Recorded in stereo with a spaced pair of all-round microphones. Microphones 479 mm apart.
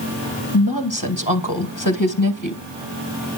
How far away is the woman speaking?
About 1.8 m.